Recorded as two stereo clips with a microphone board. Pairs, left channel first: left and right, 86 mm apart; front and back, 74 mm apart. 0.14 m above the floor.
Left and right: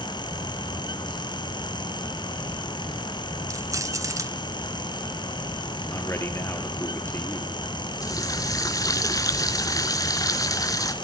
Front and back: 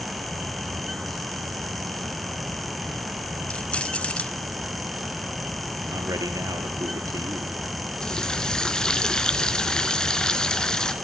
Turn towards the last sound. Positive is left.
turn(degrees=75)